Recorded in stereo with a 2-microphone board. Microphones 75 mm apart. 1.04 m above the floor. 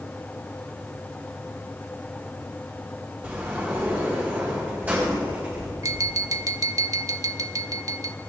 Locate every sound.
3.2 s a sliding door: 20° right (ahead or behind), 3.5 m
5.8 s tapping: 45° right (ahead or behind), 0.8 m